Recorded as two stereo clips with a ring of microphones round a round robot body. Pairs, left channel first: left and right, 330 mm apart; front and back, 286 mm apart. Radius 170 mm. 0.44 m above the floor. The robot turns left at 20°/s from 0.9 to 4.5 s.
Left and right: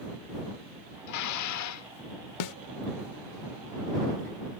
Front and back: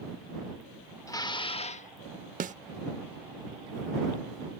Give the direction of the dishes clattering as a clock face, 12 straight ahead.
9 o'clock.